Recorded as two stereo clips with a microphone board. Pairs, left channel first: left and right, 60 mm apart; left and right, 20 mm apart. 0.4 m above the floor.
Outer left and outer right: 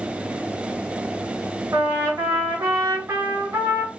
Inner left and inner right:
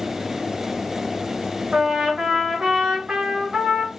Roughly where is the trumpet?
Right.